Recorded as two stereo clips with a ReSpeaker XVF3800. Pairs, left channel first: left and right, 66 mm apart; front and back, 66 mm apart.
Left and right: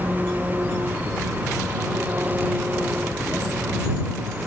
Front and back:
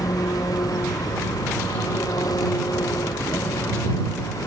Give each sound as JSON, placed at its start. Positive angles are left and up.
{"t": 0.0, "sound": "an engine running", "azimuth_deg": -25}